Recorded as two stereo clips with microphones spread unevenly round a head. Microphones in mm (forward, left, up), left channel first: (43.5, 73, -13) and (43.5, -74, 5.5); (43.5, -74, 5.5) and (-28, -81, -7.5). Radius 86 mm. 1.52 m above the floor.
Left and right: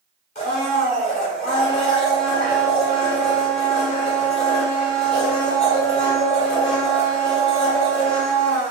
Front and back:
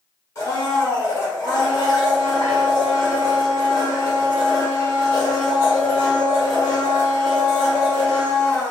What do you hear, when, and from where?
0.3 s a blender: 50° left, 1.9 m